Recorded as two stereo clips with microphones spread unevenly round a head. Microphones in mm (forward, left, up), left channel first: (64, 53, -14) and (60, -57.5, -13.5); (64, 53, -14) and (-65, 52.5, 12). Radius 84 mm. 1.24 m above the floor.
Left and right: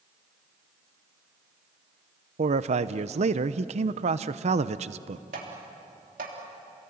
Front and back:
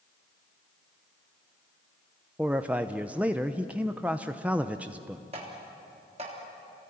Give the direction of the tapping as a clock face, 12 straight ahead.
4 o'clock.